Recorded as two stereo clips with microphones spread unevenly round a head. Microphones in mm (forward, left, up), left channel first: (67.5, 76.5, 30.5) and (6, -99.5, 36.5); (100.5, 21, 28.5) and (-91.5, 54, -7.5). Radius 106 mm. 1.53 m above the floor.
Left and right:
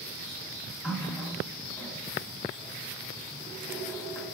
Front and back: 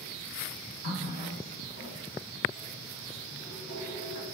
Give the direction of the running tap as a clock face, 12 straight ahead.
12 o'clock.